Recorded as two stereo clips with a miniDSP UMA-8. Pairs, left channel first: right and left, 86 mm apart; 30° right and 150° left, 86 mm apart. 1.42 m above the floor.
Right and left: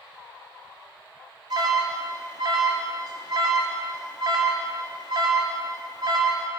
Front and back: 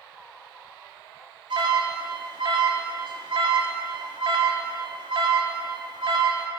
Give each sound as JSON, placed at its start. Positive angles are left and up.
{"t": 1.5, "sound": "an alarm", "azimuth_deg": 125, "distance_m": 4.5}